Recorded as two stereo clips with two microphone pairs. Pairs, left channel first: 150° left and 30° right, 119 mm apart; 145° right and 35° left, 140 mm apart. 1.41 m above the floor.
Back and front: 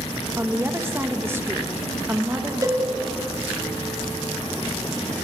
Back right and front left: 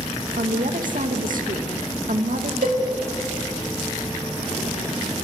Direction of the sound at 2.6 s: 25° left.